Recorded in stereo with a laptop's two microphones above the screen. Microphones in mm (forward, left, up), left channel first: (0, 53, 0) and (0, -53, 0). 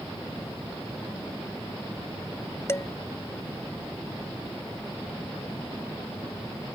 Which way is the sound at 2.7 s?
25° left (ahead or behind).